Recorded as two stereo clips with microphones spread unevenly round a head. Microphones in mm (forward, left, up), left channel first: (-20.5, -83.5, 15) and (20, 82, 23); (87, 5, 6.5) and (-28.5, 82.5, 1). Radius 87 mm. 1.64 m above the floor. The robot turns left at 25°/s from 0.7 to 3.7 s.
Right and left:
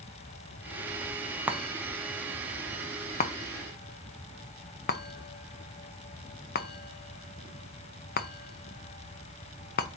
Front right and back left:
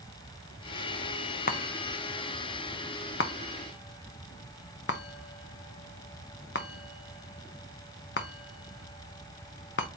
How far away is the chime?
About 0.7 m.